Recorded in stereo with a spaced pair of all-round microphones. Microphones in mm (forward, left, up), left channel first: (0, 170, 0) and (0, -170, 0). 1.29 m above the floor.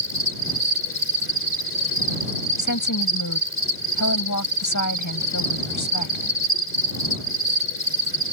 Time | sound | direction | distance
0.0 | an insect | 35° left (ahead or behind) | ?
2.6 | a woman speaking | 60° left (ahead or behind) | ?